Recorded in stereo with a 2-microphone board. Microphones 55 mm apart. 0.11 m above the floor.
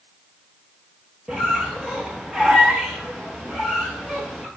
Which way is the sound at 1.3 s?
10° right (ahead or behind).